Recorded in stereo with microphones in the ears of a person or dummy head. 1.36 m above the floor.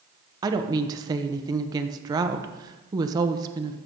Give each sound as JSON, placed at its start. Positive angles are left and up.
{"t": 0.4, "sound": "a woman speaking", "side_deg": -20, "distance_m": 1.0}